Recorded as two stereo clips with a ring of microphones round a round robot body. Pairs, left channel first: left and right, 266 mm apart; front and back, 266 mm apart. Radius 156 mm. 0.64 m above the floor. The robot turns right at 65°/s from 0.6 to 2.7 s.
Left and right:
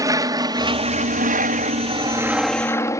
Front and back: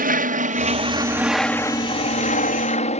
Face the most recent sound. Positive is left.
turn(degrees=25)